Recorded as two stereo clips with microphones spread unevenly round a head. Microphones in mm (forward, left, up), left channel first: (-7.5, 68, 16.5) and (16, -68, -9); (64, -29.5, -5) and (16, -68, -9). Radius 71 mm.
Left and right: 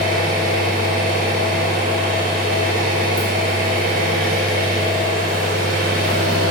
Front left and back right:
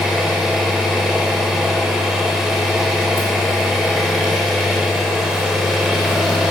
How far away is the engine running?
About 4 m.